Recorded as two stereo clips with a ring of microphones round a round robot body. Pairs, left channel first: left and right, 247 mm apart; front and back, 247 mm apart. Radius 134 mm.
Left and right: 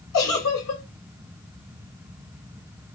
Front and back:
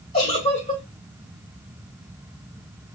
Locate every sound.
0.1 s a giggle: 65° left, 1.6 m